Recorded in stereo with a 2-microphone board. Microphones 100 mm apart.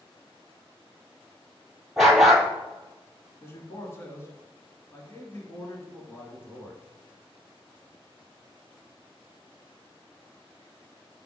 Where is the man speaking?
25° left (ahead or behind), 1.7 m.